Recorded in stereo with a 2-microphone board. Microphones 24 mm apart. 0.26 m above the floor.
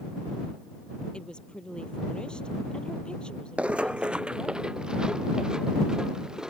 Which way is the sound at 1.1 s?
40° left (ahead or behind).